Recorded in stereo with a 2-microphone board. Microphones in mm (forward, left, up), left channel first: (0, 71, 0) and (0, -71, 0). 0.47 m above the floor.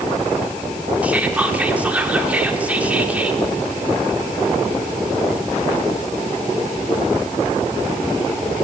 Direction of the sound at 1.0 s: 10° right (ahead or behind).